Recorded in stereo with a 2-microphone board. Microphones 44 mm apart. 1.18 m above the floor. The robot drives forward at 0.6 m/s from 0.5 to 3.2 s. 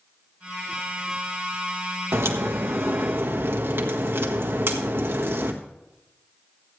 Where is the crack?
75° right (ahead or behind), 1.3 m; by 5.5 s 55° right (ahead or behind), 1.5 m.